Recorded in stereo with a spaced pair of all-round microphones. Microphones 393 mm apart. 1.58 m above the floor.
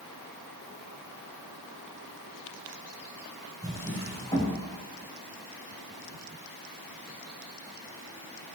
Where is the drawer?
10° left (ahead or behind), 4.5 m.